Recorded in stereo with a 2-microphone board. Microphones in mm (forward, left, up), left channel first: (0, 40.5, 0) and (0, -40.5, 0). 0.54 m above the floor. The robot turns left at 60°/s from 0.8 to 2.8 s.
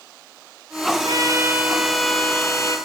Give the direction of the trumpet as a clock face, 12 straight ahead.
4 o'clock.